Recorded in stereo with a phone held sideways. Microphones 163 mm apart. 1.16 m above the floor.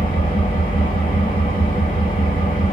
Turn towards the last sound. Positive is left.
turn(degrees=50)  # may be behind; listen again after turning